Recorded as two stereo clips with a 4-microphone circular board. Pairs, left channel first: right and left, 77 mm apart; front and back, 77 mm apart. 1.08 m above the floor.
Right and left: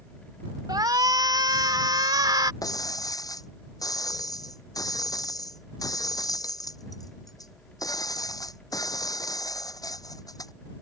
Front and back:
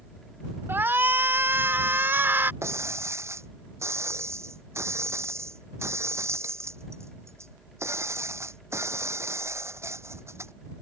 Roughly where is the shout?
Behind left.